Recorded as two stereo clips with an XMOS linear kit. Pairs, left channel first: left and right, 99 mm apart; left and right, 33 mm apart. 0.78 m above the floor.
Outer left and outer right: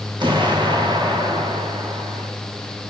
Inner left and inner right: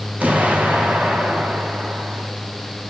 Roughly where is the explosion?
Right.